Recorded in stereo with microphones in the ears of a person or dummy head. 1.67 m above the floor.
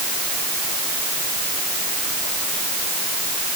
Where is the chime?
I don't hear a chime.